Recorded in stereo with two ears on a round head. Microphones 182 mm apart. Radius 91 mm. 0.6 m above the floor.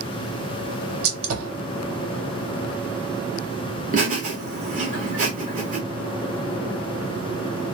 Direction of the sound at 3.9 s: 40° right (ahead or behind).